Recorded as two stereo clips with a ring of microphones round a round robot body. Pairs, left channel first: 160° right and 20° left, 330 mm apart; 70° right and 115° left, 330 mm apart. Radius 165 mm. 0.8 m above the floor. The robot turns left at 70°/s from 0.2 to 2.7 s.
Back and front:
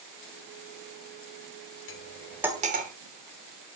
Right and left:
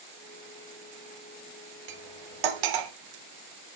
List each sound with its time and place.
1.9 s cutlery clinking: 145° left, 1.3 m; by 2.9 s 90° left, 1.3 m